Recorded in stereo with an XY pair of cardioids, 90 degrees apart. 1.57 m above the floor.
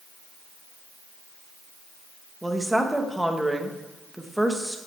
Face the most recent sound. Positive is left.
turn(degrees=-5)